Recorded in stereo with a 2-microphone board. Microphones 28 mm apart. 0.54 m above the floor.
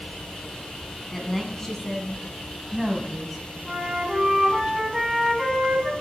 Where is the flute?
15° right (ahead or behind), 5 m.